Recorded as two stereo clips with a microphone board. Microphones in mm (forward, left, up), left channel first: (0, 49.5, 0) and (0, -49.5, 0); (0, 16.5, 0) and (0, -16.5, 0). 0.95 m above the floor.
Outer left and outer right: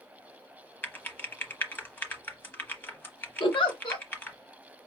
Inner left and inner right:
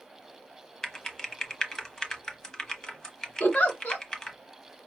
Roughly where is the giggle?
Left.